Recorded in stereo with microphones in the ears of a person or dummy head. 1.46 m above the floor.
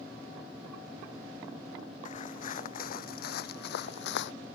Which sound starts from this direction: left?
Footsteps, at 2.0 s.